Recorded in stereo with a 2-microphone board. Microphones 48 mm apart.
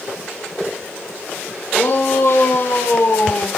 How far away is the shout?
About 4 m.